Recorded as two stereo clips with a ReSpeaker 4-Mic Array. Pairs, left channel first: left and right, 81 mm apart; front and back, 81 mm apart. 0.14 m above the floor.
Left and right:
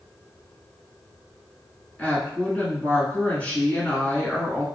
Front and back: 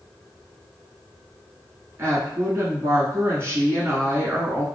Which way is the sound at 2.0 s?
150° left.